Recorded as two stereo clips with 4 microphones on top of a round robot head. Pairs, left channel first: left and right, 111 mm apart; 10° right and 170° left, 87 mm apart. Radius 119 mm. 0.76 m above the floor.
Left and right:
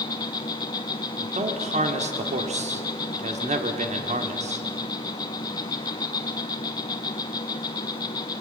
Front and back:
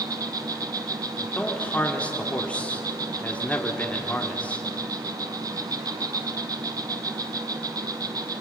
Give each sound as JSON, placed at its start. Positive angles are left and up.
{"t": 0.0, "sound": "an insect", "azimuth_deg": 135, "distance_m": 0.8}
{"t": 1.2, "sound": "a man speaking", "azimuth_deg": -90, "distance_m": 2.0}